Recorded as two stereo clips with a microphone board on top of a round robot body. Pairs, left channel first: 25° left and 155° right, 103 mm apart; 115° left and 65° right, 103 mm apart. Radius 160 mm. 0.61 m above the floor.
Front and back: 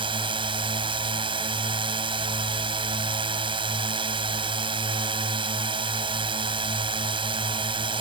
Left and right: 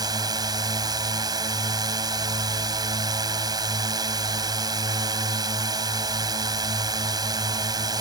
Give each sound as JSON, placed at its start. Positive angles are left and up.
{"t": 0.0, "sound": "a drone", "azimuth_deg": -120}